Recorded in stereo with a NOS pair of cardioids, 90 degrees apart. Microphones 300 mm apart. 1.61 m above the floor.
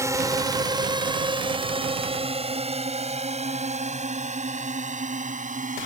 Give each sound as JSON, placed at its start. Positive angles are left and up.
{"t": 0.0, "sound": "a drone", "azimuth_deg": -10}